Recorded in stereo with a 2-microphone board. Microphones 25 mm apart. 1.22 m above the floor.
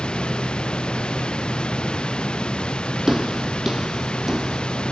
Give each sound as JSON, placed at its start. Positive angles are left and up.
{"t": 0.0, "sound": "running water", "side_deg": 35}
{"t": 3.1, "sound": "footsteps", "side_deg": -10}